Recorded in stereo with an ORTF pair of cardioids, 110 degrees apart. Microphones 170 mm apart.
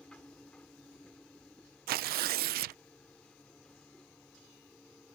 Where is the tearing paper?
65° right.